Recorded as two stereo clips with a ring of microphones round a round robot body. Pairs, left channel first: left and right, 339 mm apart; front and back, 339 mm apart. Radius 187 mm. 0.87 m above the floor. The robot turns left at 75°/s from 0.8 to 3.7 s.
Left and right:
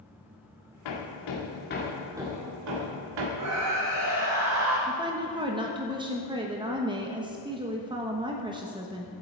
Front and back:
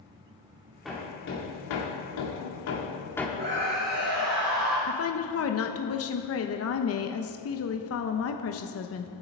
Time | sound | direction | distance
0.8 | hammering | 90° left | 2 m
3.4 | a scream | 115° right | 1.8 m
4.9 | a woman speaking | 20° right | 1.0 m